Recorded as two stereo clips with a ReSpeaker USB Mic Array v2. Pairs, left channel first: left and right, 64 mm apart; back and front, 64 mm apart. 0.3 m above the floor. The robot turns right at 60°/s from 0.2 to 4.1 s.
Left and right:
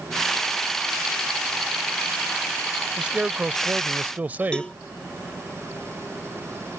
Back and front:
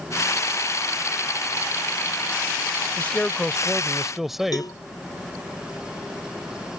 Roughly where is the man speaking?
Behind right.